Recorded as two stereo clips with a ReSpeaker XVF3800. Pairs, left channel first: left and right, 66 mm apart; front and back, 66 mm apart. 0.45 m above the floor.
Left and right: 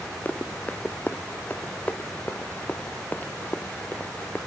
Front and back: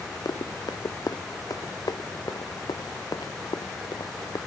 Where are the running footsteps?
25° left.